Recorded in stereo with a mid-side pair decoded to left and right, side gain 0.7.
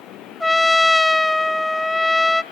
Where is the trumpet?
5° left, 0.5 m.